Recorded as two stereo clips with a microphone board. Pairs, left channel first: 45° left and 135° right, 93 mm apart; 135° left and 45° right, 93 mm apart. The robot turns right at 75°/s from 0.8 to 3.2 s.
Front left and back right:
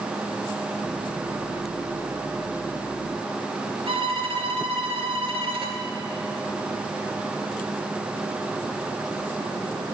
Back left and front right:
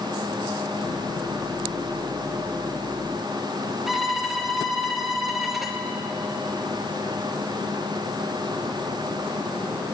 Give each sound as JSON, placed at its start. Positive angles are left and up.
{"t": 3.9, "sound": "a violin", "azimuth_deg": -135, "distance_m": 2.0}